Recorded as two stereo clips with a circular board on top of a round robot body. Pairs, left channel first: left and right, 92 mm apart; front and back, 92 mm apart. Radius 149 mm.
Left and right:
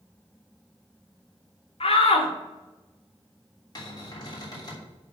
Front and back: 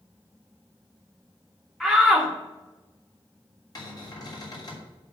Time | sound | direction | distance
1.8 | a shout | 85° left | 1.7 m
3.8 | a cupboard door | 45° left | 3.5 m